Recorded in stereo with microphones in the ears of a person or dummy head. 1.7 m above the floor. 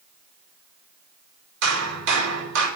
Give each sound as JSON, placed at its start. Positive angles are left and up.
{"t": 1.6, "sound": "hammering", "side_deg": -70, "distance_m": 5.0}